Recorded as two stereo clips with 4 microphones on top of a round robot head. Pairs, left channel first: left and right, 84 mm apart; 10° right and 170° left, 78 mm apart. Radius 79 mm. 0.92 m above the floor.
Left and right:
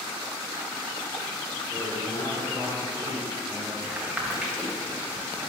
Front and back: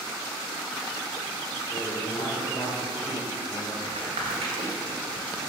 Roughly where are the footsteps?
Behind.